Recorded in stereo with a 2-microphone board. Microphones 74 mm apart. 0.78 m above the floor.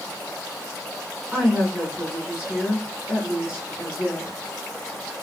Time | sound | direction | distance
1.3 | a woman speaking | 25° right (ahead or behind) | 3.5 m